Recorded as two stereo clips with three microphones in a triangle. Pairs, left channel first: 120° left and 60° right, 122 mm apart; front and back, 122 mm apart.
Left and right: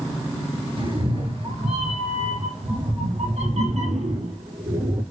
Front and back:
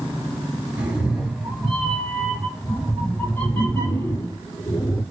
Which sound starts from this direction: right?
A cat meowing, at 0.8 s.